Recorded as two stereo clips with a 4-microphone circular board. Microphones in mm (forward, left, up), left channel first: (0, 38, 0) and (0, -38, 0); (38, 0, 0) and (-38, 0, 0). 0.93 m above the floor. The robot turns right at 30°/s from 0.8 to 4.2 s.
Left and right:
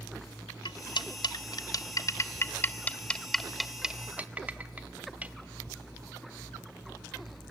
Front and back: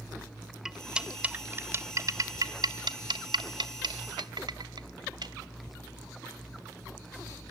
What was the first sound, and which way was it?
Cutlery clinking, 95° left.